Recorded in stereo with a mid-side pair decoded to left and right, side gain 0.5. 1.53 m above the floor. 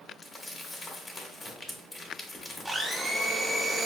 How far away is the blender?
About 0.8 m.